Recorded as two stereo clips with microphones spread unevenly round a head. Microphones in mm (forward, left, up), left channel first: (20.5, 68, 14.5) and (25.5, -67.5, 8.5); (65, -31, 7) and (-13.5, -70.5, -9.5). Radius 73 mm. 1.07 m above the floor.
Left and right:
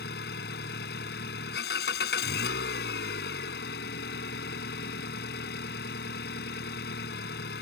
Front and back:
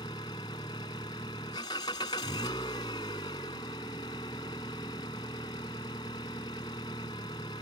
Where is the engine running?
90° left.